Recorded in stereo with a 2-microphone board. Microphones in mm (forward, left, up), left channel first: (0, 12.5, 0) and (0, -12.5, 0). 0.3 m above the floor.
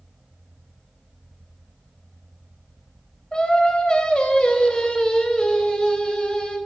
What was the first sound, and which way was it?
Singing, 40° left (ahead or behind).